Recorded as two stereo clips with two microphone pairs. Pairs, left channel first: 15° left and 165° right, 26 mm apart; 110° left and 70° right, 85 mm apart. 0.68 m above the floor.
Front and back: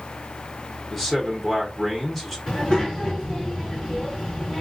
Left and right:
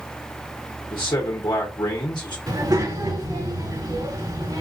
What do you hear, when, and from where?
0.9 s a man speaking: 95° left, 1.1 m
2.5 s a child speaking: 35° right, 3 m